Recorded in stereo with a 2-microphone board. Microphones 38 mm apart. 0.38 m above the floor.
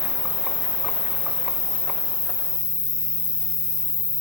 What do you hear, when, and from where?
0.0 s an insect: 20° right (ahead or behind), 1.3 m